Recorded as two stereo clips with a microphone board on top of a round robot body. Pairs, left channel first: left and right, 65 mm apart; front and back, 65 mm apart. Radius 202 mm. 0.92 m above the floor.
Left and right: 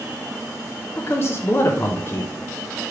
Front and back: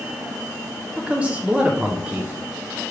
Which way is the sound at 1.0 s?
115° left.